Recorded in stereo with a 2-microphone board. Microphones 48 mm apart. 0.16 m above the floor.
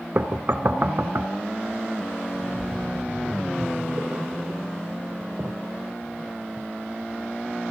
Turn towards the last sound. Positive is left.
turn(degrees=-30)  # may be behind; listen again after turning